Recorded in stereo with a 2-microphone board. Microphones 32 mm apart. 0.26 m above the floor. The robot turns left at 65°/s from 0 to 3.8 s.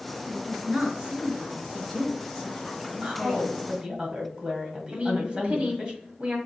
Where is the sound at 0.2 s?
25° right (ahead or behind), 1.3 m; by 4.0 s 20° left (ahead or behind), 1.3 m.